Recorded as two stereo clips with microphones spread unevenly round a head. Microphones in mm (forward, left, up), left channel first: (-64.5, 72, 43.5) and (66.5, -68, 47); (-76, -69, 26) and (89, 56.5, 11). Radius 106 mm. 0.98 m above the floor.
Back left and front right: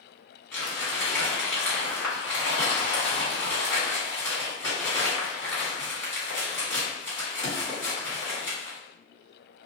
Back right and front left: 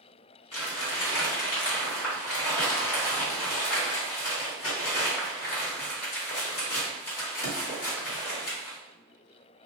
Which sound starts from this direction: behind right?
Crumpling, at 0.5 s.